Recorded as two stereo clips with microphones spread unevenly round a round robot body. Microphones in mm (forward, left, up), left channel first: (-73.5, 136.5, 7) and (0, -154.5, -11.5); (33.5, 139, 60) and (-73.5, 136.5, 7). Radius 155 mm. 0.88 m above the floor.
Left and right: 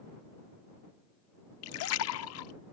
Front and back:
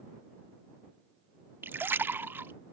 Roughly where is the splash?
Left.